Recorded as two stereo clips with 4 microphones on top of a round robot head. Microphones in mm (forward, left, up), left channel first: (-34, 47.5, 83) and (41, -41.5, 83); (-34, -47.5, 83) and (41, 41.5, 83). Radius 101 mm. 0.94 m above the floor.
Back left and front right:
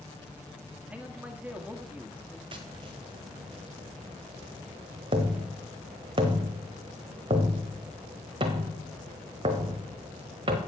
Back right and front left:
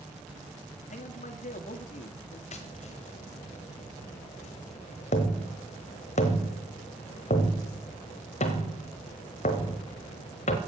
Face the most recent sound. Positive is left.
turn(degrees=-100)